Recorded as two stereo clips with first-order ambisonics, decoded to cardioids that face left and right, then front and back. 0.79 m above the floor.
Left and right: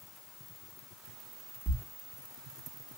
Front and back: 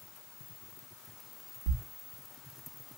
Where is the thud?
175° left, 0.8 m.